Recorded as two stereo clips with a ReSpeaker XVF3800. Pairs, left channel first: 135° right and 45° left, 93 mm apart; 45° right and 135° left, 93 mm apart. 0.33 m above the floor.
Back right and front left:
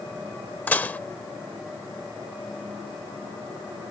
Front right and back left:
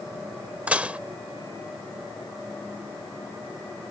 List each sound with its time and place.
0.7 s dishes clattering: 175° right